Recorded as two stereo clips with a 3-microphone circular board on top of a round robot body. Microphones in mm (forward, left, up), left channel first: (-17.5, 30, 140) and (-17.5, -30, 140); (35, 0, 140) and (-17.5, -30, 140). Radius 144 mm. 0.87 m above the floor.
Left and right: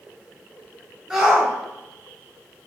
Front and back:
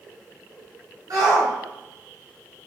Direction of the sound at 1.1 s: 175° right.